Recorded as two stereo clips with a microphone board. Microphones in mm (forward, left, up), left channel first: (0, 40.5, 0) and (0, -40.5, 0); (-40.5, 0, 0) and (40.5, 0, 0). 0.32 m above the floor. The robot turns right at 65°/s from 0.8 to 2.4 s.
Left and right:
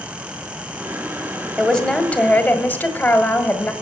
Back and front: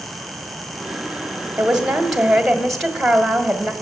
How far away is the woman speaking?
About 1.4 m.